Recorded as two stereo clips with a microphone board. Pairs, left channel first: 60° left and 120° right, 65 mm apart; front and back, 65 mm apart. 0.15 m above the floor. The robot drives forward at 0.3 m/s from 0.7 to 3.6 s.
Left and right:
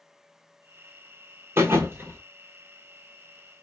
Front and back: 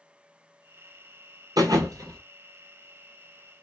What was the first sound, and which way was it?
A thud, 170° right.